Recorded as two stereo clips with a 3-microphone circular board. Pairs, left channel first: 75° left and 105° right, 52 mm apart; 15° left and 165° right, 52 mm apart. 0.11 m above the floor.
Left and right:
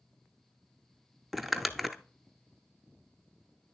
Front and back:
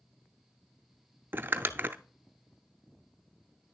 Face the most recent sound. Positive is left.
turn(degrees=165)